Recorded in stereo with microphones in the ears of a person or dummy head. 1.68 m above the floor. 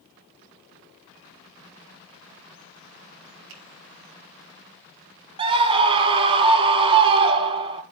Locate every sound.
3.5 s a finger snap: 80° right, 3.5 m
5.4 s a scream: 25° right (ahead or behind), 2 m